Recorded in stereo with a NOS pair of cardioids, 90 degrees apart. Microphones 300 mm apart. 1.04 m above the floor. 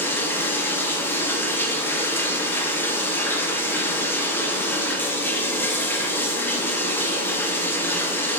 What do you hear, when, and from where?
0.0 s running water: 5° left, 0.7 m